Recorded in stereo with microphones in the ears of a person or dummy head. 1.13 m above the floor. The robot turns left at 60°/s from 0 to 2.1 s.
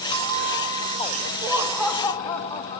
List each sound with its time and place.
0.1 s a bell: 35° left, 1.2 m; by 1.3 s 40° right, 1.2 m
1.4 s laughter: 160° right, 1.3 m; by 2.8 s 160° left, 1.3 m